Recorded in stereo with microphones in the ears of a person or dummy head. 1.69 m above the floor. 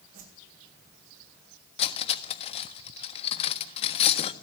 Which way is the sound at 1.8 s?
35° left (ahead or behind).